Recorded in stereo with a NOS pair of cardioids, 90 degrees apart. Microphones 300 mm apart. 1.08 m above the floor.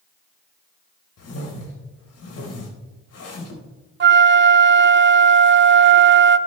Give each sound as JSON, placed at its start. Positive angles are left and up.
{"t": 1.2, "sound": "a whoosh", "azimuth_deg": 50, "distance_m": 4.5}
{"t": 4.0, "sound": "a flute", "azimuth_deg": -35, "distance_m": 0.7}